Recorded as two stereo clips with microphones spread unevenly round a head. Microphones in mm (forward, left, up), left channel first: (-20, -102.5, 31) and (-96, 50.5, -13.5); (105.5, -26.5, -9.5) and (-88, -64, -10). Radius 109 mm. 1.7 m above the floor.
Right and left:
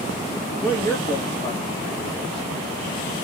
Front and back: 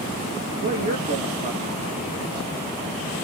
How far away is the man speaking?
About 0.9 m.